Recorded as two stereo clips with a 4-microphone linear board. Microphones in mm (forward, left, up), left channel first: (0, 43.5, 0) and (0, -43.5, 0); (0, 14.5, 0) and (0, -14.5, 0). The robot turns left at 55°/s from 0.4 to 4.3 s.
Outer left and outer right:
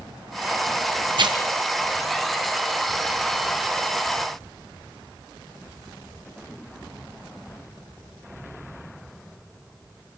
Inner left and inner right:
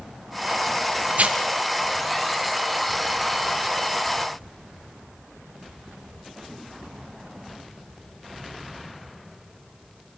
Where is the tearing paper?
70° right (ahead or behind), 1.5 m; by 1.4 s 55° right (ahead or behind), 1.5 m.